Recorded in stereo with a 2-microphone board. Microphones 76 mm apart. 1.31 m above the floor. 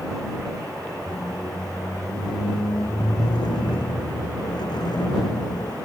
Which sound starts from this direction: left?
A squeak, at 1.1 s.